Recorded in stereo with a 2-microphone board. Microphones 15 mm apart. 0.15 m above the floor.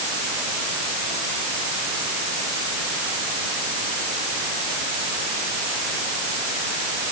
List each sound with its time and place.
Only background noise.